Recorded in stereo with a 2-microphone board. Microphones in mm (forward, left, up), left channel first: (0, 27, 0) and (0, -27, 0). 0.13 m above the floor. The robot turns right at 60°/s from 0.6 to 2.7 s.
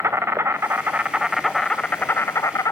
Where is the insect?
50° right, 1.1 m; by 2.7 s 75° left, 1.1 m.